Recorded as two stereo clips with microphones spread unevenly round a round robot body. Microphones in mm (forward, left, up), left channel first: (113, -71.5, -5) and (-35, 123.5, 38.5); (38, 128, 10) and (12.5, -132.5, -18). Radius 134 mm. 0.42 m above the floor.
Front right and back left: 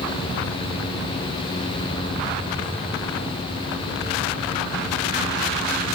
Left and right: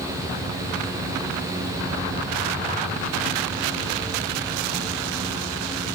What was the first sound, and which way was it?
Only background noise.